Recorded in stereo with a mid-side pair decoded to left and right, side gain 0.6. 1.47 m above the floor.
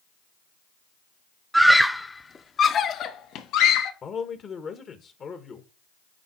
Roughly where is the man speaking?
Ahead left.